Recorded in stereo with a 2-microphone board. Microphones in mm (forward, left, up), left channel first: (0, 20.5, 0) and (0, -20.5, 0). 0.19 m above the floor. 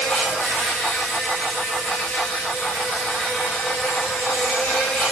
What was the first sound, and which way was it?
An insect, 55° left (ahead or behind).